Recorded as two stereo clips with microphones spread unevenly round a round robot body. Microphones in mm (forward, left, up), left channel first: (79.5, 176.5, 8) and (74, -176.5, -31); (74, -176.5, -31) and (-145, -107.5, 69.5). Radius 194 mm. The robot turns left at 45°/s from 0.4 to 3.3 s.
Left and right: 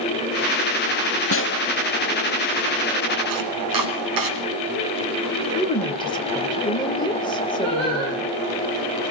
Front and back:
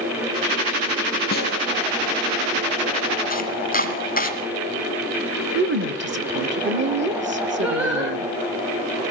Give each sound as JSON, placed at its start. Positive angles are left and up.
{"t": 1.3, "sound": "a snare drum", "azimuth_deg": 35, "distance_m": 1.0}
{"t": 3.3, "sound": "chopping", "azimuth_deg": -65, "distance_m": 2.0}
{"t": 5.5, "sound": "a woman speaking", "azimuth_deg": 165, "distance_m": 1.1}
{"t": 7.6, "sound": "singing", "azimuth_deg": -115, "distance_m": 7.0}